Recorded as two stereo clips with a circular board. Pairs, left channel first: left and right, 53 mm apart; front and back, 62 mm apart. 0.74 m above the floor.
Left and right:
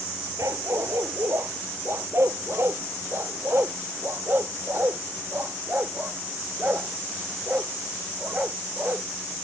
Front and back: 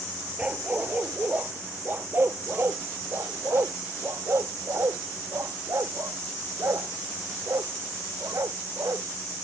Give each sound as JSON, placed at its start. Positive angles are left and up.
{"t": 0.4, "sound": "a dog barking", "azimuth_deg": -110}